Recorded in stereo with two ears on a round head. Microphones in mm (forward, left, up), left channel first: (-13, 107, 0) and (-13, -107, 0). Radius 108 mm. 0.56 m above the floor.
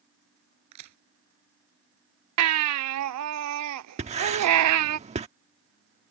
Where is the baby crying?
75° right (ahead or behind).